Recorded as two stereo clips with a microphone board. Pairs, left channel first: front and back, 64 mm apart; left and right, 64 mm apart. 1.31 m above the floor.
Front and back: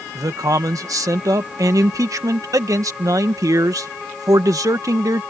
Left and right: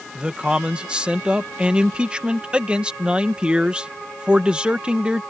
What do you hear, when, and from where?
0.1 s a man speaking: 160° right